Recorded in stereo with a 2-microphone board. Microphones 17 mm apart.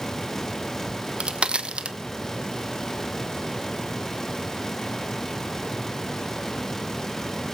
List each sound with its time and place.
0.9 s a crack: 75° right (ahead or behind), 0.9 m